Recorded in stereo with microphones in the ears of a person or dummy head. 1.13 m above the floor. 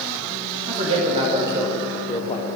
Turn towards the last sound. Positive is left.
turn(degrees=35)  # may be behind; listen again after turning